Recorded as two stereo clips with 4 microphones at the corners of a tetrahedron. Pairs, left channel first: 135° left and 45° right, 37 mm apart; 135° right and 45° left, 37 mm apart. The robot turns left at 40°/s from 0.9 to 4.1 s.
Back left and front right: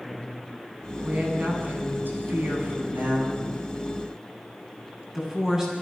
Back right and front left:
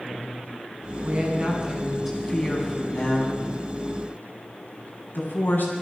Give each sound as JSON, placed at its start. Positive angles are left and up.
{"t": 1.0, "sound": "a woman speaking", "azimuth_deg": 5, "distance_m": 9.5}